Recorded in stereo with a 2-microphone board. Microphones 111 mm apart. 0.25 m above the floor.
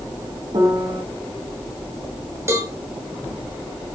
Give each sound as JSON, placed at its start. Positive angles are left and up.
{"t": 0.5, "sound": "a piano", "side_deg": -60, "distance_m": 1.8}
{"t": 2.5, "sound": "a cowbell", "side_deg": -25, "distance_m": 1.0}